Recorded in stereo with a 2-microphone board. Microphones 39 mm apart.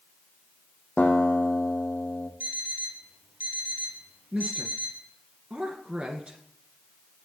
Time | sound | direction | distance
1.0 | a guitar | 30° left (ahead or behind) | 2 m
2.4 | an alarm clock | 50° right (ahead or behind) | 2 m
4.3 | a woman speaking | 30° right (ahead or behind) | 1.9 m